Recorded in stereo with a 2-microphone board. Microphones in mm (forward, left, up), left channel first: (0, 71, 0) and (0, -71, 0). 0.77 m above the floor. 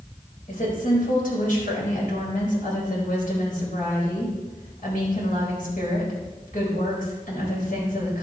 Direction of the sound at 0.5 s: 70° left (ahead or behind).